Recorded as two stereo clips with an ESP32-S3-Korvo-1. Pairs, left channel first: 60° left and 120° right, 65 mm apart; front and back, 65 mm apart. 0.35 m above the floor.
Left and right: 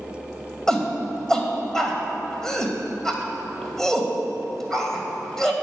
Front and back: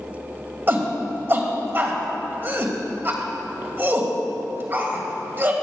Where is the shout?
135° left, 2 m.